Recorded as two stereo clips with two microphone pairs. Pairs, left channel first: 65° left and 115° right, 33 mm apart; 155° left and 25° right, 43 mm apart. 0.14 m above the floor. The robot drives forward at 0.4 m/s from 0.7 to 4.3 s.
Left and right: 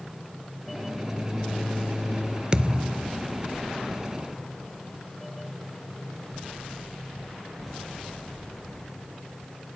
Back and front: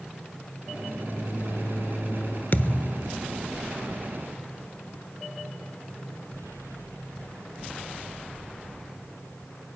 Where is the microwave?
155° left, 2.5 m; by 2.4 s 160° left, 3 m.